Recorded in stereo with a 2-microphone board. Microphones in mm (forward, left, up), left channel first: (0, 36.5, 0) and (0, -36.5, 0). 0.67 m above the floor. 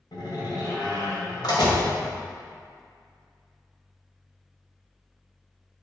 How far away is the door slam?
About 2.5 m.